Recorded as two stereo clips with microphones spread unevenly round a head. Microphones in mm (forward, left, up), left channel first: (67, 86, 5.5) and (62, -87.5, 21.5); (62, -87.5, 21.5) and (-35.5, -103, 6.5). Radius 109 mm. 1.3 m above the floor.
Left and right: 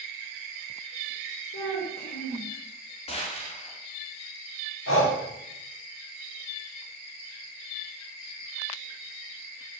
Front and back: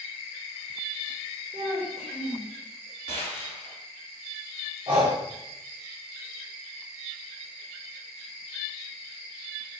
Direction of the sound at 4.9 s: 120° left.